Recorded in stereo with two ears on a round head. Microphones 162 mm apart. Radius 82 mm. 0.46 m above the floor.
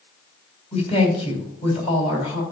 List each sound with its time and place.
0.7 s a woman speaking: 35° left (ahead or behind), 3 m